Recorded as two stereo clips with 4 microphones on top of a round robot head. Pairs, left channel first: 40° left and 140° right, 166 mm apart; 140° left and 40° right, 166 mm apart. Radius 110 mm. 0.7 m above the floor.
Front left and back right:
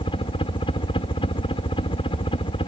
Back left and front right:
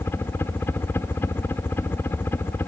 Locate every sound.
0.0 s a helicopter: 70° left